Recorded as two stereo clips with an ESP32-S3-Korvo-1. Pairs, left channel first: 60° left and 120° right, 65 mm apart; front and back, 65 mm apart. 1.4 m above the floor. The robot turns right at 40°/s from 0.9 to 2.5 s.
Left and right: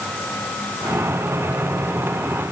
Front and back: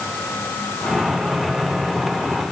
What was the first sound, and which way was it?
Only background noise.